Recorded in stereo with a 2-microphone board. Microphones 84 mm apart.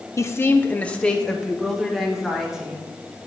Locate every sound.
0.2 s a woman speaking: 35° left (ahead or behind), 0.7 m; by 2.9 s 5° right (ahead or behind), 1.8 m